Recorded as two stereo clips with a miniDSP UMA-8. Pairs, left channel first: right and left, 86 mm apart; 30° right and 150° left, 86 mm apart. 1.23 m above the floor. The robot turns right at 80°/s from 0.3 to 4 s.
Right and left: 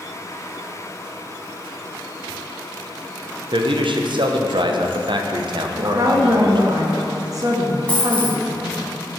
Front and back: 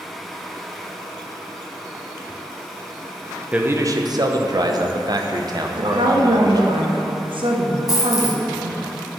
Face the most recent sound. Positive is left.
turn(degrees=-20)